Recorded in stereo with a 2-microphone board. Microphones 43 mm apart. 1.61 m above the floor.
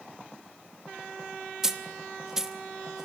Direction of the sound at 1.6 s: 10° right (ahead or behind).